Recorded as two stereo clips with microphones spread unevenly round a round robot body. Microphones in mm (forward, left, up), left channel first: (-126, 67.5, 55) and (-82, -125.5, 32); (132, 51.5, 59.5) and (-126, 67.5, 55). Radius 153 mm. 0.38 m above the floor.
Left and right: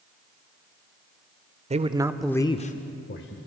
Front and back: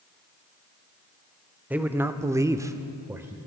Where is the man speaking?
105° right, 1.1 m; by 3.4 s 95° left, 1.5 m.